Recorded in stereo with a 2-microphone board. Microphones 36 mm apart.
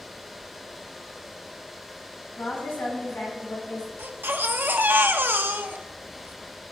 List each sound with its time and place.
2.4 s a woman speaking: 75° left (ahead or behind), 5.5 m; by 3.9 s 65° left (ahead or behind), 6.5 m
4.0 s a baby crying: 75° right (ahead or behind), 0.8 m